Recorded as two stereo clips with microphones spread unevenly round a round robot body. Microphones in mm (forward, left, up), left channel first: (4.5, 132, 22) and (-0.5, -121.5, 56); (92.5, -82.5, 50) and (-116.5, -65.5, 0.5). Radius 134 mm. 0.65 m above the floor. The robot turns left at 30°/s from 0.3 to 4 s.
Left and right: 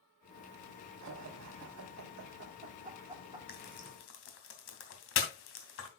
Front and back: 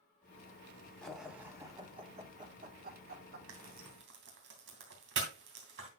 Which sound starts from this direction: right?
Laughter, at 1.0 s.